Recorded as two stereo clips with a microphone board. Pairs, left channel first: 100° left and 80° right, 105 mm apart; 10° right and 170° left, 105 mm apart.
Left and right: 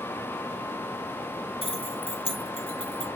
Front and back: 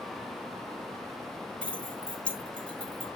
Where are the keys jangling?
70° left, 2.5 m.